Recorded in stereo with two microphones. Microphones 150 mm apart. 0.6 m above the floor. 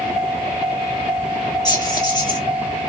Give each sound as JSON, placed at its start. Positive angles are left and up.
{"t": 1.6, "sound": "keys jangling", "side_deg": 30, "distance_m": 2.5}